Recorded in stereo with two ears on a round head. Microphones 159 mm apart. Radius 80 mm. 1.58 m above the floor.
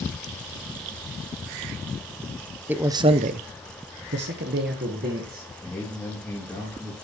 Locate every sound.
2.7 s a man speaking: 10° right (ahead or behind), 0.7 m; by 5.5 s 50° right (ahead or behind), 1.7 m
5.6 s a man speaking: centre (ahead or behind), 2.5 m